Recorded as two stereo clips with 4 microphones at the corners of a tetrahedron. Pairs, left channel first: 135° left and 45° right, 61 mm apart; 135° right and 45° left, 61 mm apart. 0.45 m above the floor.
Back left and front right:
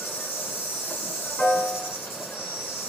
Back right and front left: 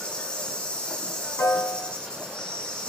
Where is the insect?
160° left, 2 m.